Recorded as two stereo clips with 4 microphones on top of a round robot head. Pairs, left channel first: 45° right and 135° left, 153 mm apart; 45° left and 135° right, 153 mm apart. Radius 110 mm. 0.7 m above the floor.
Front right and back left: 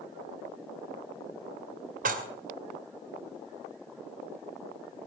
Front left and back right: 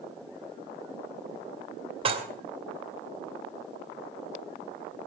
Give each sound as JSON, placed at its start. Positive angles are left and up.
{"t": 2.0, "sound": "dishes clattering", "azimuth_deg": 170, "distance_m": 2.5}